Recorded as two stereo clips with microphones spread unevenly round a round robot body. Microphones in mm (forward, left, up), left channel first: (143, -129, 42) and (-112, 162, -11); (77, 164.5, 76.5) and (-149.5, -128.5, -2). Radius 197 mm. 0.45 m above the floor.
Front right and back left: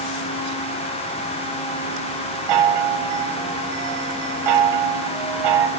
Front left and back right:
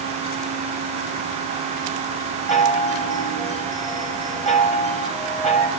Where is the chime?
130° left, 2 m.